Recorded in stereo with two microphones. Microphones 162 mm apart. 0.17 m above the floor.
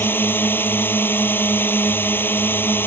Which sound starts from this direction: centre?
A drone, at 0.0 s.